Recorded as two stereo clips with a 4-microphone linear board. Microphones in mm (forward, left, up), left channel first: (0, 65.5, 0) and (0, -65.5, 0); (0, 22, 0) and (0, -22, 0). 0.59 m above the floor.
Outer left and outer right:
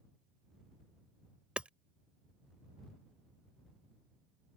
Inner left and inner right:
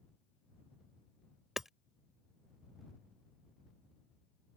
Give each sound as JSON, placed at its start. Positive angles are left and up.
{"t": 1.6, "sound": "hammering", "side_deg": -10}